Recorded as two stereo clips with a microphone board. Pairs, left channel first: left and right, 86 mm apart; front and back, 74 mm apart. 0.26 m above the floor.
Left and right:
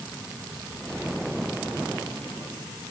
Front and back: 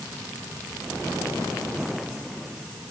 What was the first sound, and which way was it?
Only background noise.